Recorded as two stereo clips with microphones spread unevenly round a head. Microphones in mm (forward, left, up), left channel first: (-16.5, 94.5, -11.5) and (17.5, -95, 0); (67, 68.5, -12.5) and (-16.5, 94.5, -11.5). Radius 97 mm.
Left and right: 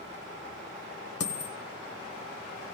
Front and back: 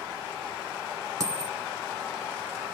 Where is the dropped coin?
120° left, 1.8 m.